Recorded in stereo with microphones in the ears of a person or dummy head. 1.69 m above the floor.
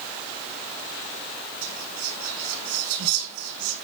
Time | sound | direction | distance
1.6 | whispering | 85° right | 6 m